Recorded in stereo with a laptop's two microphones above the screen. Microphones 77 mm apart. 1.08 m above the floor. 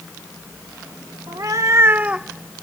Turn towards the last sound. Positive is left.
turn(degrees=15)  # may be behind; listen again after turning